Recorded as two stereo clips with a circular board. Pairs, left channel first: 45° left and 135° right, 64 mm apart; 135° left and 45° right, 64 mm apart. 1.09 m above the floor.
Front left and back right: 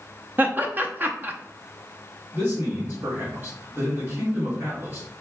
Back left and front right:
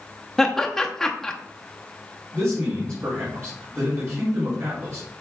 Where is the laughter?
150° right, 0.7 m.